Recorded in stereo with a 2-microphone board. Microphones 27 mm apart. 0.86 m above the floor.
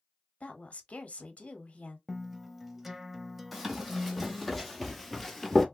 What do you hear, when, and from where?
0.4 s a woman speaking: 55° left (ahead or behind), 1.1 m
2.1 s a guitar: 10° right (ahead or behind), 0.6 m
3.5 s running footsteps: 5° right (ahead or behind), 1.8 m; by 5.7 s 5° left (ahead or behind), 0.8 m